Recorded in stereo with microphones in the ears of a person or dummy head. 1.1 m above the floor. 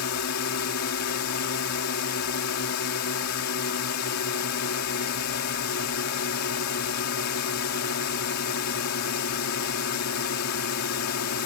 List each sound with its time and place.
0.0 s a drone: 75° left (ahead or behind)